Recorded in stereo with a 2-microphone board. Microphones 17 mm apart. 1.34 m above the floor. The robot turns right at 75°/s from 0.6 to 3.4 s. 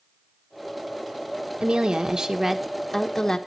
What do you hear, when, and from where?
1.6 s a woman speaking: 85° right, 1.3 m; by 3.4 s 50° left, 1.3 m